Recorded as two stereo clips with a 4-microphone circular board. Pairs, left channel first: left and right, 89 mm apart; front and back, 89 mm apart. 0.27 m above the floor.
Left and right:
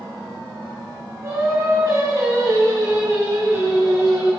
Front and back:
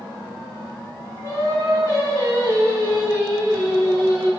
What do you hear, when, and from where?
1.2 s singing: 135° right, 2.5 m